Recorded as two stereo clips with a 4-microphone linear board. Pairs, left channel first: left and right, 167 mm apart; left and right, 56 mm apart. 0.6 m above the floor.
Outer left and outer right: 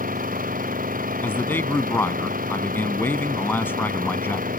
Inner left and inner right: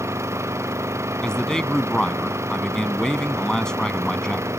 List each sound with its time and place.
0.0 s an engine running: 55° right (ahead or behind)
1.2 s a man speaking: 10° left (ahead or behind)